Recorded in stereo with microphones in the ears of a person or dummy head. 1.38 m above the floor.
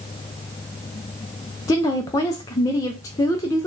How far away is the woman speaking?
About 0.5 m.